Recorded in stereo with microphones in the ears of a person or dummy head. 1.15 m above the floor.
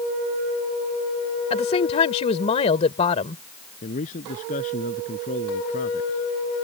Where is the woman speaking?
30° left (ahead or behind).